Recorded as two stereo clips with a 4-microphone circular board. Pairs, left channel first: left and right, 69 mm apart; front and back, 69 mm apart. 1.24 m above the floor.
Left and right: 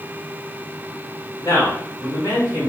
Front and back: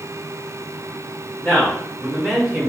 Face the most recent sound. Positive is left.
turn(degrees=100)